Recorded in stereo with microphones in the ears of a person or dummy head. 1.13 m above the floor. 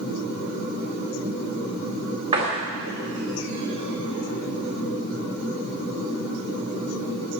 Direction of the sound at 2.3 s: 30° right (ahead or behind).